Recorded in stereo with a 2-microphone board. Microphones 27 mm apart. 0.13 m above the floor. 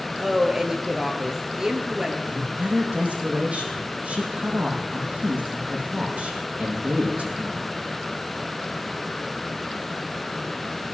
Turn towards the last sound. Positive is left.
turn(degrees=-60)  # may be behind; listen again after turning